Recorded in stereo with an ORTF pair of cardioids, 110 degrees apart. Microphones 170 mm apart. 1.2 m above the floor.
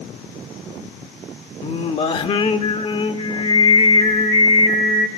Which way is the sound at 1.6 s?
35° left.